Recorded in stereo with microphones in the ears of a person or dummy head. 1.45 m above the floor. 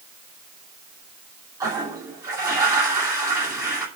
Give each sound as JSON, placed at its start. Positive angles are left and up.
{"t": 1.6, "sound": "a toilet flushing", "side_deg": -20, "distance_m": 2.5}